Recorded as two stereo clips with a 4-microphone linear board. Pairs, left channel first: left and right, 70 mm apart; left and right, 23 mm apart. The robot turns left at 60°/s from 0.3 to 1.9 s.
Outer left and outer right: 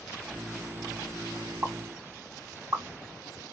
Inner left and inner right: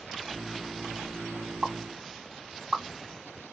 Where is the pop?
45° right (ahead or behind), 2 m; by 2.8 s 55° right (ahead or behind), 2 m.